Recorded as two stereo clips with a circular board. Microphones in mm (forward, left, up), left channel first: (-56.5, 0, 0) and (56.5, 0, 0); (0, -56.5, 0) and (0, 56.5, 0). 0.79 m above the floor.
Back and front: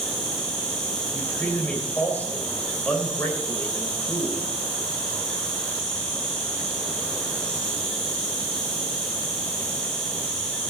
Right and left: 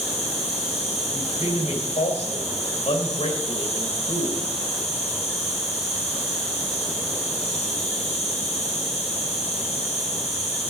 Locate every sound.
0.0 s an insect: 95° right, 4.5 m
1.1 s a man speaking: 105° right, 3 m